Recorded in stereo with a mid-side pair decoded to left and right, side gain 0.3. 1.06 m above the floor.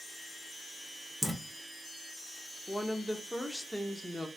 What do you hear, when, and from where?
1.2 s dripping: 5° left, 0.9 m
2.7 s a woman speaking: straight ahead, 0.8 m